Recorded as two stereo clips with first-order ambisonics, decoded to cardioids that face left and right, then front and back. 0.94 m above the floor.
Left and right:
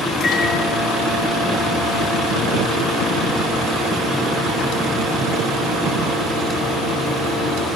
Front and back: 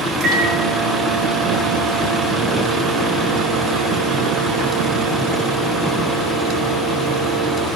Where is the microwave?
150° left, 2.5 m.